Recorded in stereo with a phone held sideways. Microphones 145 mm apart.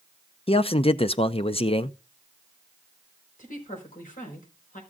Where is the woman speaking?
65° left (ahead or behind), 5 m.